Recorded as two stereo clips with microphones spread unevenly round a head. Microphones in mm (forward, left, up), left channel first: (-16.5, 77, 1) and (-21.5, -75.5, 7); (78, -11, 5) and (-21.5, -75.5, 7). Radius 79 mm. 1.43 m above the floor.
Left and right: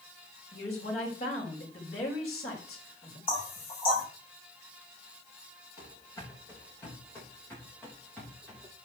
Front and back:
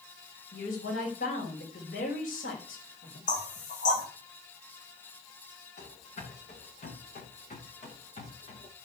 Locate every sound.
0.5 s a woman speaking: 35° left, 6 m
3.3 s knocking: 30° left, 6 m
5.8 s running footsteps: 20° left, 9 m; by 8.7 s straight ahead, 8 m